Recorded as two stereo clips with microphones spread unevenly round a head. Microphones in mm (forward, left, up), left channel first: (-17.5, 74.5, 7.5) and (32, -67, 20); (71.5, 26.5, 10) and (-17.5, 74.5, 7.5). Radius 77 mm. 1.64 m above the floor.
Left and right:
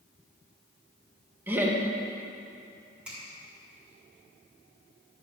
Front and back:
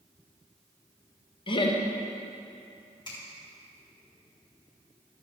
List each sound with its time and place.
1.5 s laughter: 5° left, 1.6 m
3.0 s a finger snap: 15° left, 4 m